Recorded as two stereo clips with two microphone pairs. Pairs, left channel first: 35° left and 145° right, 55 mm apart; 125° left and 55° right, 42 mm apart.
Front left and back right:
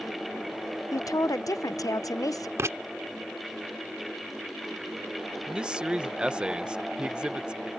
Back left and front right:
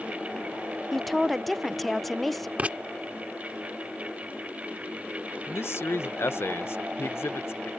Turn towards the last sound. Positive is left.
turn(degrees=145)